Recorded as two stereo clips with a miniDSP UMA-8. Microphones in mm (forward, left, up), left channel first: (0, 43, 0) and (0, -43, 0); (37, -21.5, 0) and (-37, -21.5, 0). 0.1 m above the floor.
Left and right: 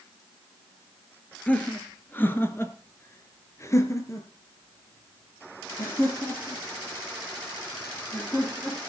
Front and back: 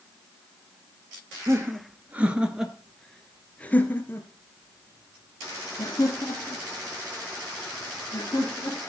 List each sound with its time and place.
1.5 s laughter: 155° left, 2 m; by 8.9 s 25° left, 6 m